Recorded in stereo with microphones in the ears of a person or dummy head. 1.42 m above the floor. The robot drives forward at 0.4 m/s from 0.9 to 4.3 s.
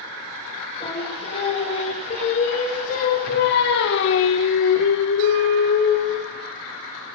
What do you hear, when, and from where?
0.8 s singing: 30° left (ahead or behind), 1.9 m; by 6.3 s 75° left (ahead or behind), 1.0 m